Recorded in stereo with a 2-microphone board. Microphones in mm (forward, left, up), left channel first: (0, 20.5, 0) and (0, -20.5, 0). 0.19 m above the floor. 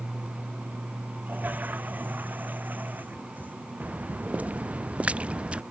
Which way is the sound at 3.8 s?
45° right (ahead or behind).